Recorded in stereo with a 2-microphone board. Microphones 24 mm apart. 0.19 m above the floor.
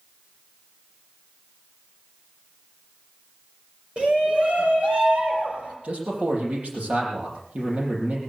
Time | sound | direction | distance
4.0 | a shout | 55° right (ahead or behind) | 3.5 m
5.8 | a man speaking | 75° right (ahead or behind) | 7 m